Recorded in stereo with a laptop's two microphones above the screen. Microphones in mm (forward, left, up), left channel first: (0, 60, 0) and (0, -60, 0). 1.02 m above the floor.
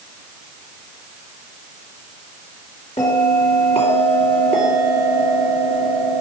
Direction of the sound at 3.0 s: 60° left (ahead or behind).